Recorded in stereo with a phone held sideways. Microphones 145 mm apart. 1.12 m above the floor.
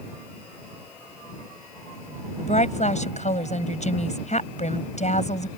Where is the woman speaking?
55° left (ahead or behind).